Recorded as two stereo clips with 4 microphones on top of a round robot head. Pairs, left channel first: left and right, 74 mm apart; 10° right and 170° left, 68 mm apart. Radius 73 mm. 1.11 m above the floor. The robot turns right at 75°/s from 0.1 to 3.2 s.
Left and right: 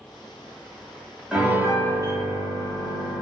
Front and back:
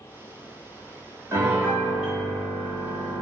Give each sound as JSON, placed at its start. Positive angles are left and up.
{"t": 1.3, "sound": "a piano", "azimuth_deg": -170, "distance_m": 1.2}